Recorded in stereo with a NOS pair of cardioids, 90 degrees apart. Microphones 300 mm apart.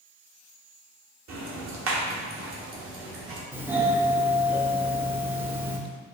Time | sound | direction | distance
1.3 | ticking | 50° right | 1.0 m
3.5 | a doorbell | 5° right | 0.5 m